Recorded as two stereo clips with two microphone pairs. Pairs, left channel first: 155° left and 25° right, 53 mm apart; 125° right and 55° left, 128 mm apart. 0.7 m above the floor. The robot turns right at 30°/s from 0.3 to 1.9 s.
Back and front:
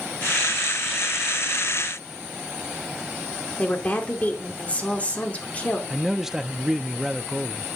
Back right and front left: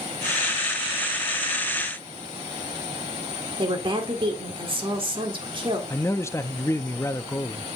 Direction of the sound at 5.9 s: 105° right.